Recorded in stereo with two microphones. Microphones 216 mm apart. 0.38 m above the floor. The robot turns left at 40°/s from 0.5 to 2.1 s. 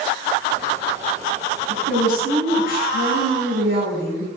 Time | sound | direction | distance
1.7 | a woman speaking | 70° right (ahead or behind) | 3 m